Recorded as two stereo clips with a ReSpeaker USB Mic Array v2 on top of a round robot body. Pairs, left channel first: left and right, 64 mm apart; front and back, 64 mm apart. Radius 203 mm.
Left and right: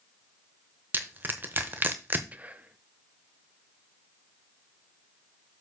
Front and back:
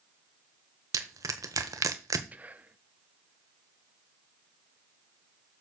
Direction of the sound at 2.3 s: 135° right.